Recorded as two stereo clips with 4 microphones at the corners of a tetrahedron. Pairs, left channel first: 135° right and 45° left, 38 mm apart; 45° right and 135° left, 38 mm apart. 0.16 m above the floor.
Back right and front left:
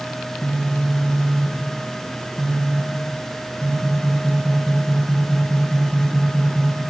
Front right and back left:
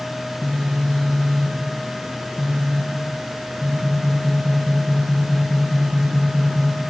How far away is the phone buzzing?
About 1.8 m.